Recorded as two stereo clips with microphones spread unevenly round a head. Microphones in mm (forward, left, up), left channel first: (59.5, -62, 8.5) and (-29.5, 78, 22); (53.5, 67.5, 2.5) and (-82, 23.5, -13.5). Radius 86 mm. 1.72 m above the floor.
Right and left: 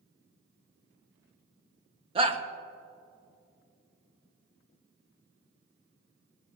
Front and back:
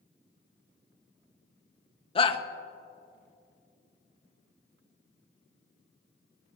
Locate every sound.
2.1 s a shout: 65° left, 1.3 m